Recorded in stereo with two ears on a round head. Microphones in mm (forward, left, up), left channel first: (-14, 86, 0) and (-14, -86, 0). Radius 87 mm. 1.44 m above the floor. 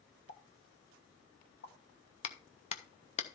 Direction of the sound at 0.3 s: 65° left (ahead or behind).